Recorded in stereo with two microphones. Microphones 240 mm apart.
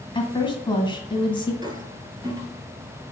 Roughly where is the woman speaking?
Centre.